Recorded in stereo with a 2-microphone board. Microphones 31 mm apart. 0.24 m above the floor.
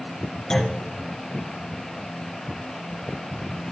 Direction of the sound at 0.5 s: 20° left (ahead or behind).